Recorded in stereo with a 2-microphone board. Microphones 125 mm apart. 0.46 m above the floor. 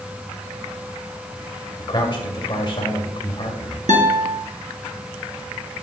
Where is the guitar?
75° right (ahead or behind), 1.8 m.